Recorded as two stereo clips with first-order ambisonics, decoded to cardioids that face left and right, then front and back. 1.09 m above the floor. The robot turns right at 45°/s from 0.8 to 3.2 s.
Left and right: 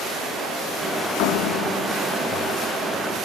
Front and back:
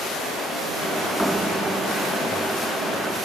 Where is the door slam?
90° left, 1.5 m; by 2.4 s 145° left, 1.5 m.